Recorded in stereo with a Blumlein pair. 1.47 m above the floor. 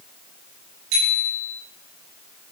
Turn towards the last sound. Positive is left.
turn(degrees=-35)